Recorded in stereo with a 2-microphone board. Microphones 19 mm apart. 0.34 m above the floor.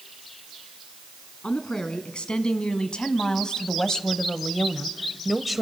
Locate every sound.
1.4 s a woman speaking: 70° left (ahead or behind), 3 m; by 5.6 s 5° right (ahead or behind), 1.3 m